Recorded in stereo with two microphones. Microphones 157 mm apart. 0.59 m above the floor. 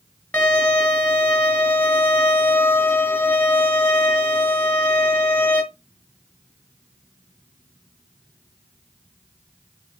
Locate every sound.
0.3 s a violin: 10° left (ahead or behind), 2.5 m